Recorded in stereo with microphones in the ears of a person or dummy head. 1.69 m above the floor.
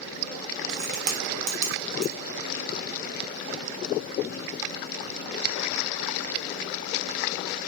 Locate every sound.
0.7 s a crack: 45° right (ahead or behind), 0.8 m